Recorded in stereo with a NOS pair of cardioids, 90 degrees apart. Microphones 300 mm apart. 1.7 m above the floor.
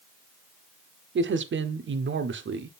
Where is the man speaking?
40° right, 1.1 m.